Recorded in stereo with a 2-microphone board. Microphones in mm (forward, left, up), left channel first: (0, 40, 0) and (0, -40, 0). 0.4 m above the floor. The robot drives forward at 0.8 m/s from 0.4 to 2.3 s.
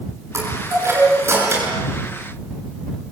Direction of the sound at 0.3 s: 35° right (ahead or behind).